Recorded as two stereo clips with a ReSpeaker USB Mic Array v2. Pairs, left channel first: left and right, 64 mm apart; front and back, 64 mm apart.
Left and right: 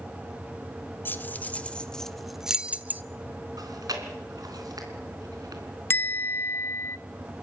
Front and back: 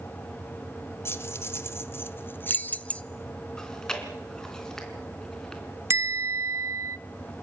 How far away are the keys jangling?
About 1.2 m.